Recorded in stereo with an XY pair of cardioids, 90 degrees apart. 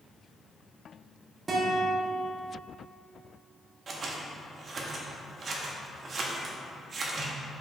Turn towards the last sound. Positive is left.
turn(degrees=-55)